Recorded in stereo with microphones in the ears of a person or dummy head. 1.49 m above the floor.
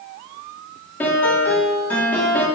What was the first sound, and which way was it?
A piano, 15° left (ahead or behind).